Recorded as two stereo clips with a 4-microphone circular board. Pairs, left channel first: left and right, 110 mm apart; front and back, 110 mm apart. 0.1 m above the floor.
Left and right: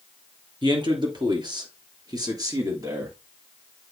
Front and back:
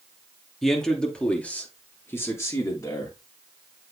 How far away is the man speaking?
About 2.5 m.